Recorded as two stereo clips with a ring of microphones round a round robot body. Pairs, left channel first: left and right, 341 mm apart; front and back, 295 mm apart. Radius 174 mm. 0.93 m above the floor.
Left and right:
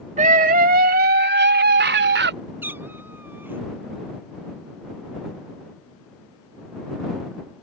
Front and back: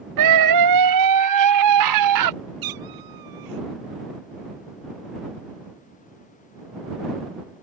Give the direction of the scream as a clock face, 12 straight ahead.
5 o'clock.